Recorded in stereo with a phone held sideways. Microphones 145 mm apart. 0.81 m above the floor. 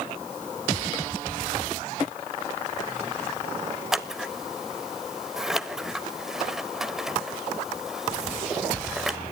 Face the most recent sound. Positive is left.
turn(degrees=0)  # may be behind; listen again after turning